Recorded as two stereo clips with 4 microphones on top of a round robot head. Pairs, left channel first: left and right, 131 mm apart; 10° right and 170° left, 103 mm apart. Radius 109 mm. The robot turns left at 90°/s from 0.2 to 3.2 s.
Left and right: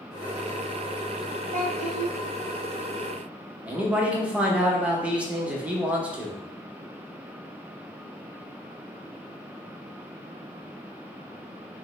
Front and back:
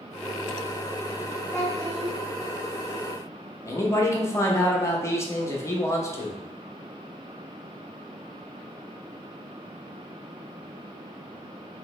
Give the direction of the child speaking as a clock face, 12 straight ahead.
2 o'clock.